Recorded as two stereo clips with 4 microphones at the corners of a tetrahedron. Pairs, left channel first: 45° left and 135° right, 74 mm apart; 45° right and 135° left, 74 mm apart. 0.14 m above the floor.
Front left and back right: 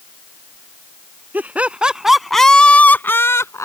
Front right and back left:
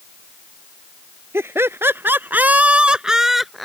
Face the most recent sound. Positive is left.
turn(degrees=40)